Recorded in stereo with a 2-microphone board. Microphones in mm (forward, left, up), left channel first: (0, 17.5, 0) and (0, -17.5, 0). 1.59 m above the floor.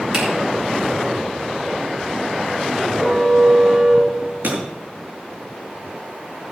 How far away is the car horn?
About 7.5 m.